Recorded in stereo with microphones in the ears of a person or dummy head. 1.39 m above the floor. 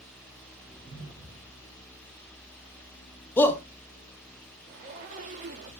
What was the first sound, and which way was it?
A whoosh, 30° left (ahead or behind).